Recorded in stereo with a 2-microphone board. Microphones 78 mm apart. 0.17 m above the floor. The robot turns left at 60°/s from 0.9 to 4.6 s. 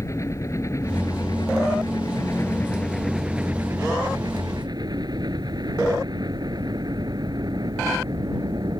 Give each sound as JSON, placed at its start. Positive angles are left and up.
{"t": 0.0, "sound": "a helicopter", "azimuth_deg": 135}